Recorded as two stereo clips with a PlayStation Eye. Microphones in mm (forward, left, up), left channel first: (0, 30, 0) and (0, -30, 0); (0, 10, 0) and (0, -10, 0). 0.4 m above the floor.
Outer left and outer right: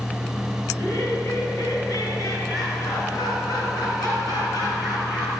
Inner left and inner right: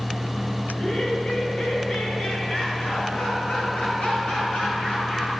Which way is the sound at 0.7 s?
60° left (ahead or behind).